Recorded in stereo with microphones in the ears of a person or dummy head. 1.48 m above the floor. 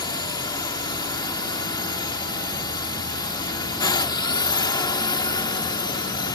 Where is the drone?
20° left (ahead or behind).